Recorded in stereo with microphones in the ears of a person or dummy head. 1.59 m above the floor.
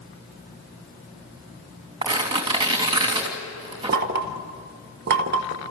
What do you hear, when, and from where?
2.0 s tearing paper: 20° right (ahead or behind), 3 m
3.9 s knocking: 55° right (ahead or behind), 1.4 m